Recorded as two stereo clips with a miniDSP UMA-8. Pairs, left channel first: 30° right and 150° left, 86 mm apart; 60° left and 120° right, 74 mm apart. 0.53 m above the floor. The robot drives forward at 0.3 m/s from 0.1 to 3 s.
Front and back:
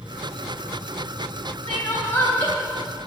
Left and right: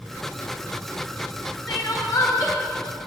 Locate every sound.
1.7 s crying: 35° left, 2.5 m; by 2.5 s 40° left, 2.5 m